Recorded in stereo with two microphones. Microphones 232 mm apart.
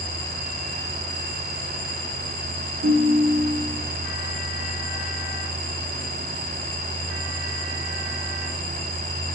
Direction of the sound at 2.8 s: 65° right (ahead or behind).